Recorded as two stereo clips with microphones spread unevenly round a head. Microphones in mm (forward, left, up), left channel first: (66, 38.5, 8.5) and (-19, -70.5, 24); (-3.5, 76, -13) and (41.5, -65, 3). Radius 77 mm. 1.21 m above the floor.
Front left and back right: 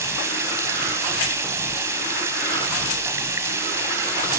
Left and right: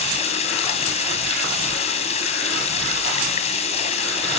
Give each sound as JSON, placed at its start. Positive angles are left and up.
{"t": 0.0, "sound": "running water", "azimuth_deg": 160, "distance_m": 3.5}